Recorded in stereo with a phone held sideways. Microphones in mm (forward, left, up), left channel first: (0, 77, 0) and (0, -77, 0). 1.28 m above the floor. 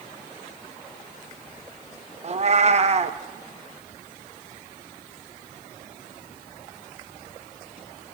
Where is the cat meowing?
45° right (ahead or behind), 0.7 m.